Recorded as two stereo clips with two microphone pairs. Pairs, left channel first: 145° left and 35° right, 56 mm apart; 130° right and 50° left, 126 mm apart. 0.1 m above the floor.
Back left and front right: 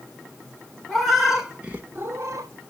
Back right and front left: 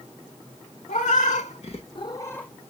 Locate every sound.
0.9 s a cat meowing: 125° right, 1.0 m; by 2.5 s 45° right, 0.6 m